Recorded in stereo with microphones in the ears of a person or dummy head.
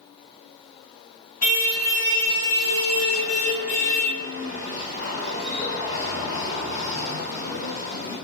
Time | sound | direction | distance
1.4 | a car horn | 45° left (ahead or behind) | 5.5 m